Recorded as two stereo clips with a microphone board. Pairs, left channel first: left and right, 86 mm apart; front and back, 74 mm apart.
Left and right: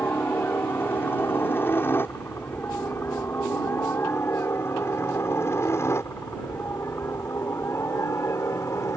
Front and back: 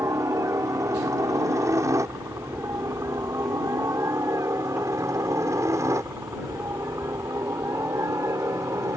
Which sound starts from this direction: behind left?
A helicopter, at 0.0 s.